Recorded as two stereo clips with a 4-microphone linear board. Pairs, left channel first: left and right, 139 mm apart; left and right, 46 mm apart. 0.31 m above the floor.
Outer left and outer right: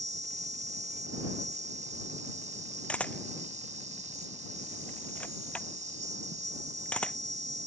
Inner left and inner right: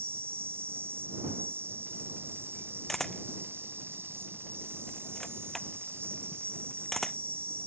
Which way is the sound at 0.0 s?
60° right (ahead or behind).